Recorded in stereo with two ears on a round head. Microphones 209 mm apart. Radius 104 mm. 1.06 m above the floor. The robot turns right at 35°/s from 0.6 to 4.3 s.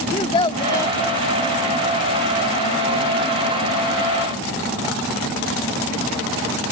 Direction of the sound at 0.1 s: 25° left (ahead or behind).